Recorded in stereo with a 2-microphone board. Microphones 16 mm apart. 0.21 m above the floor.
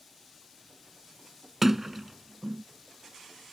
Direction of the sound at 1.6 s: 20° right (ahead or behind).